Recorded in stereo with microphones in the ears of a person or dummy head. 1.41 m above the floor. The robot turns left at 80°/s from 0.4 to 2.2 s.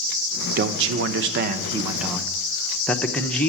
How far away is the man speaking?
About 0.8 m.